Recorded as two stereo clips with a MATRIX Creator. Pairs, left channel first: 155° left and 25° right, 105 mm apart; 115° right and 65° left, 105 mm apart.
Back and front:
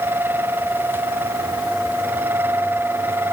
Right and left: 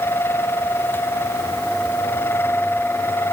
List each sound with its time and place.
Only background noise.